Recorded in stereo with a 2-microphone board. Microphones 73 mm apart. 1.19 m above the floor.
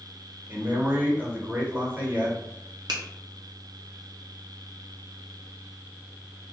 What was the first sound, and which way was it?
A man speaking, 25° right (ahead or behind).